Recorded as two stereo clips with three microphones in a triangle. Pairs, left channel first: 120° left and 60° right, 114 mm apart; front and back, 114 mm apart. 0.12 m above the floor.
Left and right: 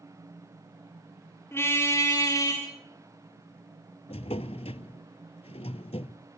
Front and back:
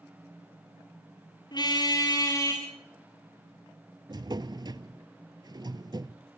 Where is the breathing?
No breathing in this recording.